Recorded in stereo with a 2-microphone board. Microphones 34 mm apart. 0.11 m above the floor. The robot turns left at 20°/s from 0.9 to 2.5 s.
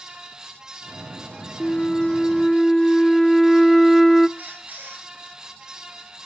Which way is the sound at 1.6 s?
15° left (ahead or behind).